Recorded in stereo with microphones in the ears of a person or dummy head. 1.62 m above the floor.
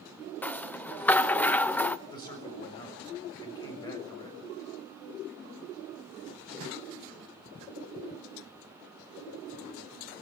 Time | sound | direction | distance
0.4 | a rattle | 5° left (ahead or behind) | 0.7 m
2.1 | a man speaking | 20° left (ahead or behind) | 6.5 m